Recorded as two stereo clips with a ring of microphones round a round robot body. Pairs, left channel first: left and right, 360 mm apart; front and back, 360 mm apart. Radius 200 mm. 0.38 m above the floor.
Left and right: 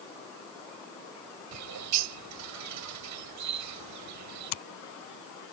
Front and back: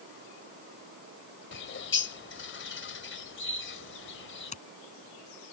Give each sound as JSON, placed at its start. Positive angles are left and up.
{"t": 1.5, "sound": "a bird", "azimuth_deg": -55}
{"t": 4.5, "sound": "scissors", "azimuth_deg": 75}